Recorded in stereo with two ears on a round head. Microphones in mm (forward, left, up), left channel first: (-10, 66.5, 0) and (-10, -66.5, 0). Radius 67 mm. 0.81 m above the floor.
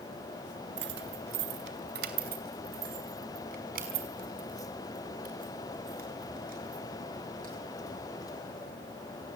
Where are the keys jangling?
85° right, 1.4 m; by 8.6 s 65° right (ahead or behind), 10 m.